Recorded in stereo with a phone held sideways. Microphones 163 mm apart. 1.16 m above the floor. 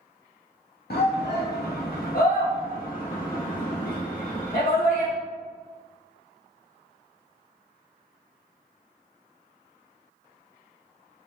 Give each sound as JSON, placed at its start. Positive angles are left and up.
{"t": 0.9, "sound": "a shout", "side_deg": 75, "distance_m": 0.6}